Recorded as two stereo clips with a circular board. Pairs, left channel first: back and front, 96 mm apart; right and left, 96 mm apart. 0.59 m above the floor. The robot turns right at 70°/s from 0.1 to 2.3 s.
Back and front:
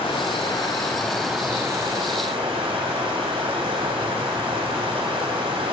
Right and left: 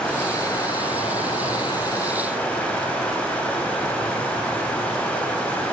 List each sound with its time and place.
0.0 s running water: 170° right, 2.5 m; by 5.7 s 15° right, 2.5 m